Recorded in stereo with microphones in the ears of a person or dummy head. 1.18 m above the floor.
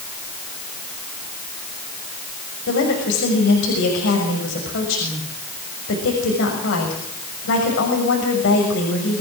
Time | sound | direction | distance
2.7 | a woman speaking | 70° left (ahead or behind) | 6.5 m